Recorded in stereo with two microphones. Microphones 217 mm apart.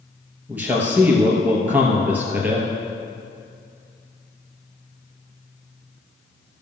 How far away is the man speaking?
About 2.5 m.